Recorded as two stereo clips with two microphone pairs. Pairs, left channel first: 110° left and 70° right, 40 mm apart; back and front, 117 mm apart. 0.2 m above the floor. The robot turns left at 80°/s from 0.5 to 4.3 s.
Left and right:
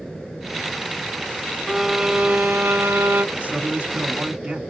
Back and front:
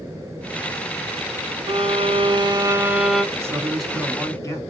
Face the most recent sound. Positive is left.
turn(degrees=-130)